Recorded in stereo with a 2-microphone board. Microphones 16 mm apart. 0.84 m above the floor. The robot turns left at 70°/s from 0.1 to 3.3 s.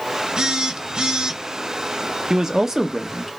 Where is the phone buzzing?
60° right, 0.7 m; by 1.4 s 130° right, 0.7 m.